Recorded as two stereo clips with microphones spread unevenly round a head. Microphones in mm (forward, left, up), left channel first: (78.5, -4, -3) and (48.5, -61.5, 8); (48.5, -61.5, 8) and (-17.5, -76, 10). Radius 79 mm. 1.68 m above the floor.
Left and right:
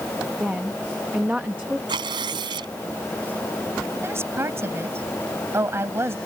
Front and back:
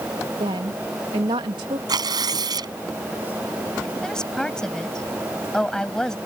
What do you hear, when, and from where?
0.4 s a woman speaking: 160° left
1.9 s tearing paper: 150° right
4.0 s a woman speaking: 70° right